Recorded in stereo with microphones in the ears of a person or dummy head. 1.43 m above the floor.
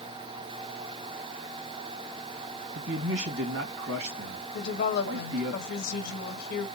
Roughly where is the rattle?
No rattle in this recording.